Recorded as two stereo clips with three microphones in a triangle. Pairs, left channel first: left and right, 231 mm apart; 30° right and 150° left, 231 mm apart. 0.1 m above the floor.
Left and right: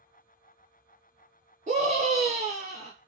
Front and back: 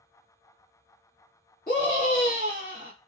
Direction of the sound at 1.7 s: 50° right.